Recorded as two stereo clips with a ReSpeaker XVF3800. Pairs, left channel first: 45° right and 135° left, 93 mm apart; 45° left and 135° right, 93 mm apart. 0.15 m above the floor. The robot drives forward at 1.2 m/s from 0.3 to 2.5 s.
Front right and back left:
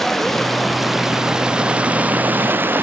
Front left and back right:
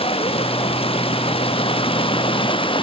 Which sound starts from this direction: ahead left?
Running water, at 0.0 s.